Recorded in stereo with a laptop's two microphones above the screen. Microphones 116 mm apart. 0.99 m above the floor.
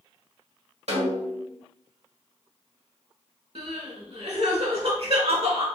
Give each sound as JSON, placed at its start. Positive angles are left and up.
{"t": 0.9, "sound": "a snare drum", "side_deg": -70, "distance_m": 1.6}
{"t": 3.5, "sound": "crying", "side_deg": -60, "distance_m": 1.2}